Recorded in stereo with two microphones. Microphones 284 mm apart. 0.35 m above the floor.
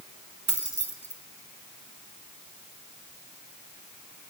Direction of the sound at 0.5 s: 65° right (ahead or behind).